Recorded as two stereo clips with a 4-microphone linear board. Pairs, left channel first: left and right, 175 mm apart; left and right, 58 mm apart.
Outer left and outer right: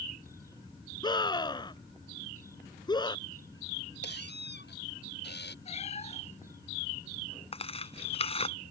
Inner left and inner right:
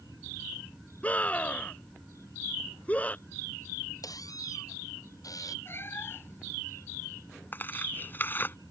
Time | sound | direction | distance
1.0 | a scream | 25° left (ahead or behind) | ?
4.0 | a squeak | 80° left | ?
5.7 | a cat meowing | 40° left (ahead or behind) | ?
7.5 | tearing paper | 35° left (ahead or behind) | ?